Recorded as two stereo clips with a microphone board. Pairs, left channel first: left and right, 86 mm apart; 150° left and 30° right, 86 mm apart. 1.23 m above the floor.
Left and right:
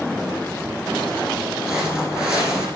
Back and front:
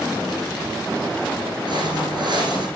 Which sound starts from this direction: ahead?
Footsteps, at 1.7 s.